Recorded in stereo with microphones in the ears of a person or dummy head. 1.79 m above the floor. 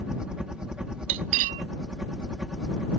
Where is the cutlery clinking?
40° right (ahead or behind).